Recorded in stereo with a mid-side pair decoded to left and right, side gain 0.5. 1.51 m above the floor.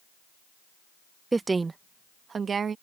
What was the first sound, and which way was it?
A woman speaking, 20° right.